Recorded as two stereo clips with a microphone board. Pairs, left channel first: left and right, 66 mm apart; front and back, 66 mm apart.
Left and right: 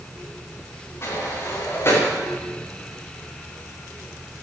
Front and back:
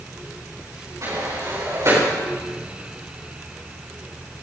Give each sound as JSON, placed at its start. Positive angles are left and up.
{"t": 1.0, "sound": "a sliding door", "azimuth_deg": 140, "distance_m": 7.5}